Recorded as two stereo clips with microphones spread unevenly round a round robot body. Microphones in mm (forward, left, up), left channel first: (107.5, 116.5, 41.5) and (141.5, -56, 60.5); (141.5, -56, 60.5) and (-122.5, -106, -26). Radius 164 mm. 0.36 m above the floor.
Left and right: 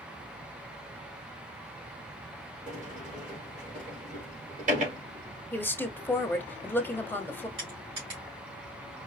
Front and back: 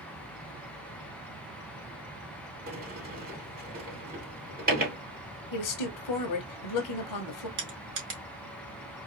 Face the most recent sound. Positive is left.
turn(degrees=-145)